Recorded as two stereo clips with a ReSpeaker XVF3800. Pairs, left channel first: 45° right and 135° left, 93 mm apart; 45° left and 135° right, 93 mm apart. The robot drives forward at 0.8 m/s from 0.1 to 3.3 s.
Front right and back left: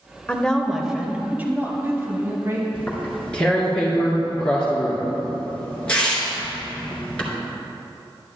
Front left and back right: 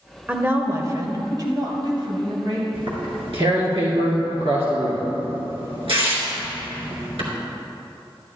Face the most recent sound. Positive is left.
turn(degrees=-125)